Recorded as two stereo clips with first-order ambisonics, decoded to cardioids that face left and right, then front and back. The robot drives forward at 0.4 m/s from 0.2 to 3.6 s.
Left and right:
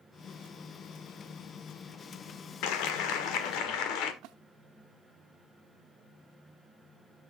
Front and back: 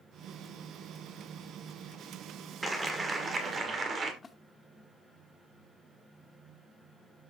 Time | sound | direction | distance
2.6 | a clap | 100° left | 1.8 m
4.2 | a splash | 75° right | 0.9 m